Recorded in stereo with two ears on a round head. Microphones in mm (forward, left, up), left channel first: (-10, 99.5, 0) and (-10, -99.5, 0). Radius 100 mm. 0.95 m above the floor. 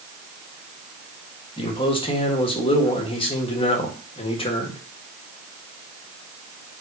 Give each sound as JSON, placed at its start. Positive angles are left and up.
{"t": 1.6, "sound": "a man speaking", "side_deg": 25, "distance_m": 1.6}